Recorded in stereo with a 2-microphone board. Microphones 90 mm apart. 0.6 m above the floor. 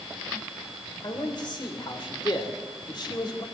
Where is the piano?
No piano in this recording.